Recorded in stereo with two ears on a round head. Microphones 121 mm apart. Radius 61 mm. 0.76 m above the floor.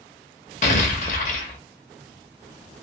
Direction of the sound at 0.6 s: 55° left (ahead or behind).